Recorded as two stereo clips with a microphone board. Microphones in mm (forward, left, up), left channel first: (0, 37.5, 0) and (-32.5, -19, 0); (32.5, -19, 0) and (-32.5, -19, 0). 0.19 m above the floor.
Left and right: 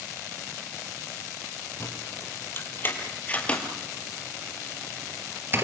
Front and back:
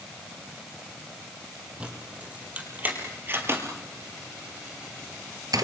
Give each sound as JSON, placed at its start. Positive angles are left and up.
{"t": 1.8, "sound": "keys jangling", "azimuth_deg": 110, "distance_m": 5.0}